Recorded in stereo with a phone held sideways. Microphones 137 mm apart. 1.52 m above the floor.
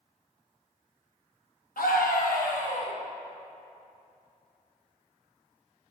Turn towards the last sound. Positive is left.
turn(degrees=50)  # may be behind; listen again after turning